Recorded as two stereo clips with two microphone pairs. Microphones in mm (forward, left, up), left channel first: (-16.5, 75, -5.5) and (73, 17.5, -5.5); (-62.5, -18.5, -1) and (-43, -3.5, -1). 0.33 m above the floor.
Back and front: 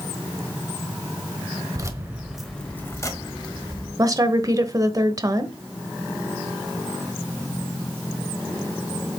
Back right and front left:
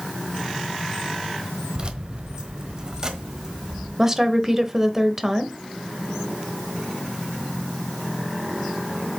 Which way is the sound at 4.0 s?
20° right.